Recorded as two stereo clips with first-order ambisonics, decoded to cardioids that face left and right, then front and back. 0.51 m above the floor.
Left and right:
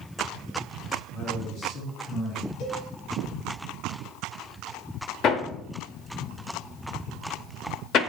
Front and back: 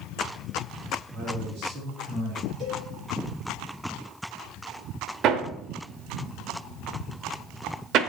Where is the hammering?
140° left, 0.8 m.